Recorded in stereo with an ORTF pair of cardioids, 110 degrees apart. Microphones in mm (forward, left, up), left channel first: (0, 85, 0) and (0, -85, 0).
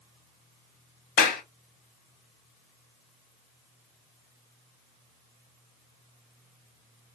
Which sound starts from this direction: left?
A clap, at 1.2 s.